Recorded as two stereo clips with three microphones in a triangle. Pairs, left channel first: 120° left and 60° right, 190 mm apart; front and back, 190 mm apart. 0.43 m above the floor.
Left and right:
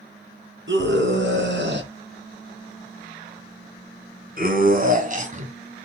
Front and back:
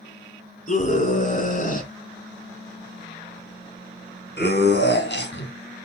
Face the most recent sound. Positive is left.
turn(degrees=-10)